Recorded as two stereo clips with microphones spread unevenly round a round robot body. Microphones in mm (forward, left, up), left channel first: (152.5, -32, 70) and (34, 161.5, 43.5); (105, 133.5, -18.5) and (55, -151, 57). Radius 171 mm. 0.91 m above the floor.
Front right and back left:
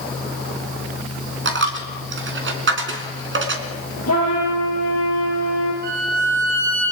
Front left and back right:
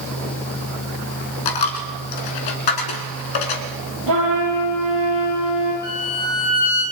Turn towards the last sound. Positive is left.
turn(degrees=180)